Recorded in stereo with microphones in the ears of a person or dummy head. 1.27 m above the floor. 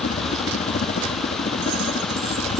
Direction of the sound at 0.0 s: 40° left (ahead or behind).